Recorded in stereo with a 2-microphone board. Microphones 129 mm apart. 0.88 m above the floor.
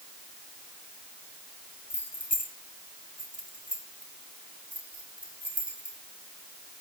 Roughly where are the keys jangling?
Left.